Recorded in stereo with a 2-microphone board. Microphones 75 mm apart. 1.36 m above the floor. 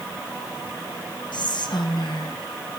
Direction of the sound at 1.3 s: 75° left (ahead or behind).